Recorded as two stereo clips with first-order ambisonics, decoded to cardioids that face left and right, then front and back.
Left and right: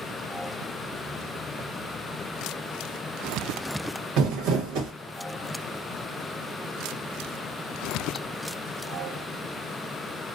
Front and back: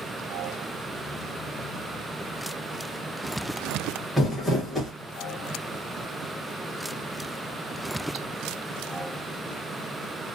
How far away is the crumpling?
About 1.0 m.